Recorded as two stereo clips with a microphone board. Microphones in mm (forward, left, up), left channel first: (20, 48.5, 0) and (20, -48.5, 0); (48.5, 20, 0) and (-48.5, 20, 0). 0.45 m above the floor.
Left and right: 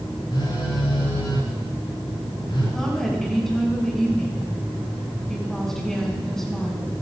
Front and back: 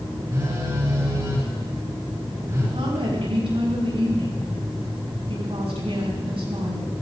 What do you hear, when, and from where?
0.3 s a phone buzzing: 120° left, 7.5 m
2.7 s a woman speaking: 175° left, 5 m